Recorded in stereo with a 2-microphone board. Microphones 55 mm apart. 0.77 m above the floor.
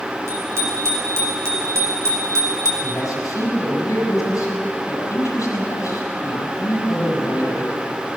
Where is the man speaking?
85° left, 6 m.